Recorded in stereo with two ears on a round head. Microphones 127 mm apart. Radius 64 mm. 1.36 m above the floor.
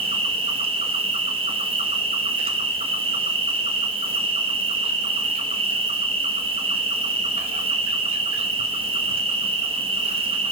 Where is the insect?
40° right (ahead or behind), 1.1 m.